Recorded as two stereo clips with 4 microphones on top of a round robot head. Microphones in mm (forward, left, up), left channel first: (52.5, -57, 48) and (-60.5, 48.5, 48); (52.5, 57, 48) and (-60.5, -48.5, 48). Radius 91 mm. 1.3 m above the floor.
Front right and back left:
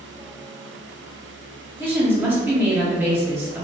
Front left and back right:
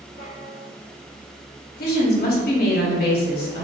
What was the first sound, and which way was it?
A woman speaking, 60° left.